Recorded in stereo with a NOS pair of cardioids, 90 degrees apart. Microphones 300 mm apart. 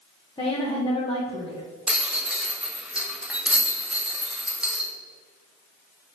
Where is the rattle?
5° right, 1.1 m.